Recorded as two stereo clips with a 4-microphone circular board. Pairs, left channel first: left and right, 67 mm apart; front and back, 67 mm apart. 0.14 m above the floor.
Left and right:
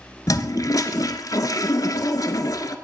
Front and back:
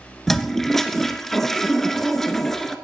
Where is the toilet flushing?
85° left, 0.7 m.